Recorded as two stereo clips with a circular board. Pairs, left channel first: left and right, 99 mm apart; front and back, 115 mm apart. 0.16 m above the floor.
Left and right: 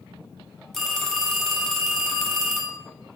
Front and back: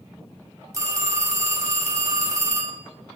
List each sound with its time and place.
0.7 s a phone ringing: 175° left, 0.7 m